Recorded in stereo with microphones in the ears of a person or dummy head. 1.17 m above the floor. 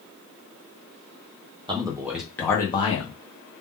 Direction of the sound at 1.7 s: 25° right (ahead or behind).